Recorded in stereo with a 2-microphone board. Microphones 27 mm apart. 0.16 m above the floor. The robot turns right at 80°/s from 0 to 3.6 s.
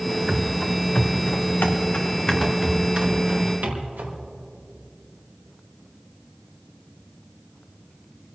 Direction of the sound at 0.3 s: 30° right (ahead or behind).